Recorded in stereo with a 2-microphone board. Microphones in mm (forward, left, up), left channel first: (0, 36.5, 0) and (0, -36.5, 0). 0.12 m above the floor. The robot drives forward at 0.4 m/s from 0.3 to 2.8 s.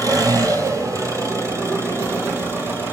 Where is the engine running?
60° right (ahead or behind), 1.2 m; by 2.9 s 35° right (ahead or behind), 1.9 m.